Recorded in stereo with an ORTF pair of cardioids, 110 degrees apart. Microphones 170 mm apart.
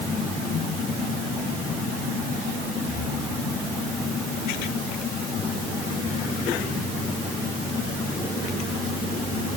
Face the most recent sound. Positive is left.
No sound to turn to.